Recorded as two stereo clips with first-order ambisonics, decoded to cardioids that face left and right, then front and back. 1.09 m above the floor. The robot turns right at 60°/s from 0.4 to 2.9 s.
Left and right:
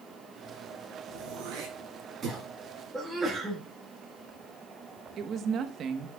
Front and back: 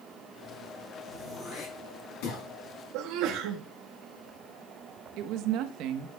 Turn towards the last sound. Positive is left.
turn(degrees=-145)